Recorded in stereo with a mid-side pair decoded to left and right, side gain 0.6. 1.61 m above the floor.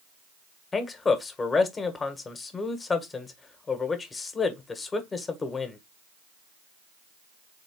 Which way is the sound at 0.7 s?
25° left.